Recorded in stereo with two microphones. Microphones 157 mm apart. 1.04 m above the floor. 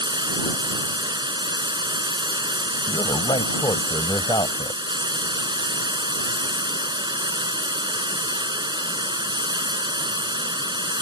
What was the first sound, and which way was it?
Running water, 30° right (ahead or behind).